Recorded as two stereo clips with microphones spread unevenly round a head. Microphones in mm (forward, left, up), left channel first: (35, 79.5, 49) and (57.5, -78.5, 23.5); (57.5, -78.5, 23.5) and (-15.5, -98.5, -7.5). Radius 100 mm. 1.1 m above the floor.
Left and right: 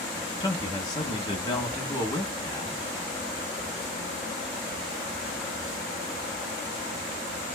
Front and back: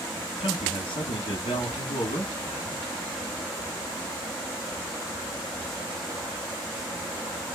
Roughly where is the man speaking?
Ahead left.